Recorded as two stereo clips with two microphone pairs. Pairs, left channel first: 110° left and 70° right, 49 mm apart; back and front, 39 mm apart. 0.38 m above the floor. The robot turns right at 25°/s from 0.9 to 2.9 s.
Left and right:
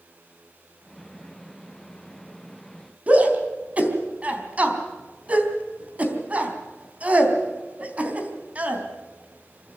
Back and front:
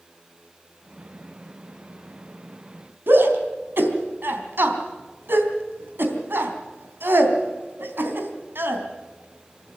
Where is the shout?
10° right, 3.5 m.